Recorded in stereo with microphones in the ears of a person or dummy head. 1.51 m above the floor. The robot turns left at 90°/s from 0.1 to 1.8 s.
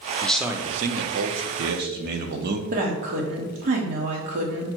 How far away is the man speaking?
About 0.6 m.